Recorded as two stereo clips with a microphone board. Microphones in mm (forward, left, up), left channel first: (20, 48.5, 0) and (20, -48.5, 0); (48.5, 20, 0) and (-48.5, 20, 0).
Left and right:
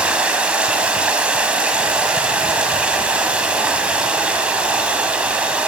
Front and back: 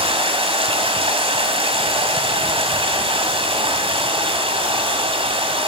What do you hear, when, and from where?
0.0 s running water: 165° right, 1.6 m